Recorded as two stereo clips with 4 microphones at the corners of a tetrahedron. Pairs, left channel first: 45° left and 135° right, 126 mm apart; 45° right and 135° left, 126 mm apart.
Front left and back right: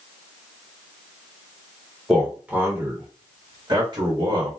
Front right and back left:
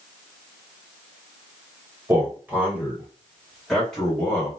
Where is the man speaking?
140° left, 1.4 m; by 4.5 s 120° right, 1.9 m.